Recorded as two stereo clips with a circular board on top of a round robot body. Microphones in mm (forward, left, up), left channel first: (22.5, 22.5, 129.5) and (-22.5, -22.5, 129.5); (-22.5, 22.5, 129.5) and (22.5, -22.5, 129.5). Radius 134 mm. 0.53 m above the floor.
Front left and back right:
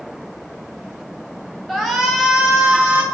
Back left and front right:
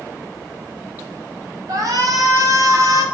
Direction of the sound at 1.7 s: 45° right.